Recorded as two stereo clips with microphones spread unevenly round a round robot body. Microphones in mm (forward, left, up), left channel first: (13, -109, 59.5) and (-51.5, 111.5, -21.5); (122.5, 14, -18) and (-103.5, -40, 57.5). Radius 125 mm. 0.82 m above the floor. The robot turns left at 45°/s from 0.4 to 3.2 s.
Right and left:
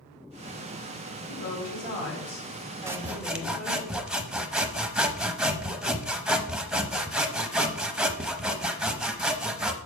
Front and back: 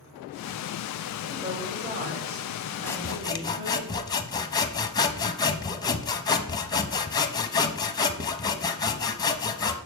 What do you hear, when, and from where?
1.3 s a woman speaking: 80° right, 3 m; by 3.9 s 170° right, 3 m
2.9 s sawing: 65° left, 0.7 m; by 9.8 s 50° left, 0.7 m